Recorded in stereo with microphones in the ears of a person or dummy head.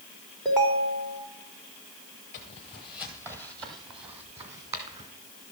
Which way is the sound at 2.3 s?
20° left (ahead or behind).